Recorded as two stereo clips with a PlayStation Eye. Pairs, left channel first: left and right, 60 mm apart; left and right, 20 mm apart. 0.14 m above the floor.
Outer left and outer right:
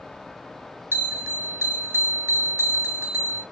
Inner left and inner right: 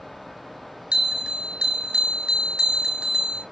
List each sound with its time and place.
0.9 s a bell: 40° right (ahead or behind), 0.7 m